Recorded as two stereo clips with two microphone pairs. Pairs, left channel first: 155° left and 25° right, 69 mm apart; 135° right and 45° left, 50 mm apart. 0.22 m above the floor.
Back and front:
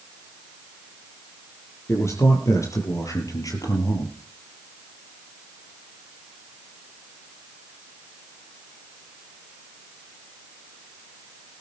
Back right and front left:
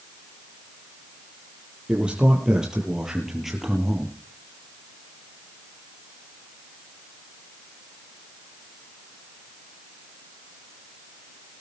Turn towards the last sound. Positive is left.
turn(degrees=135)